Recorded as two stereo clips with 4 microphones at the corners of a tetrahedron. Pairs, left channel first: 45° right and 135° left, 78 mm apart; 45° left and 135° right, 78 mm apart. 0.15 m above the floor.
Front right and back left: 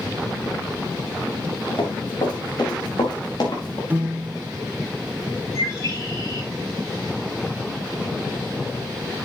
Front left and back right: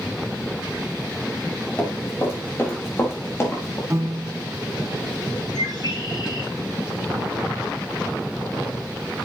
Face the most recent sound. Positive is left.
turn(degrees=10)